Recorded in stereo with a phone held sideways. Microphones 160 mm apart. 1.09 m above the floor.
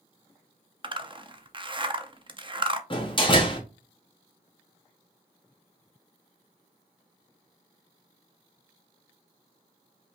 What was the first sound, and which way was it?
A zipper, 35° right (ahead or behind).